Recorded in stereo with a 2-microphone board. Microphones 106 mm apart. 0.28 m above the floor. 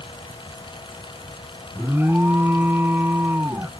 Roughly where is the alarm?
Right.